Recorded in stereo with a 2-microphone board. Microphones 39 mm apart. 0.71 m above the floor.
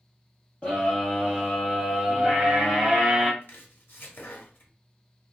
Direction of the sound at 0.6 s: 30° left (ahead or behind).